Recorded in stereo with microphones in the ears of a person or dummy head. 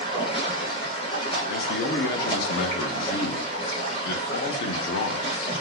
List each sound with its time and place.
0.0 s running water: 30° left (ahead or behind), 1.1 m
1.5 s a man speaking: 55° left (ahead or behind), 0.6 m